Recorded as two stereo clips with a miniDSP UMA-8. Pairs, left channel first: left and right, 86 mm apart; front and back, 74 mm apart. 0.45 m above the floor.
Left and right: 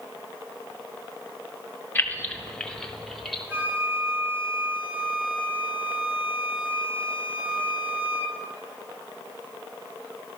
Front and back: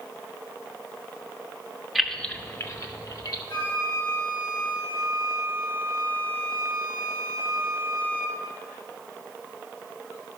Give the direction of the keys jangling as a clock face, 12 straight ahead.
9 o'clock.